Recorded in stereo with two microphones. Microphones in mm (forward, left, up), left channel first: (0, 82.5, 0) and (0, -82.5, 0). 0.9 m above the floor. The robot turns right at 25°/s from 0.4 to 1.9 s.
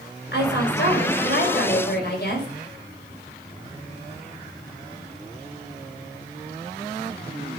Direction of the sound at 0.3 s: 70° left.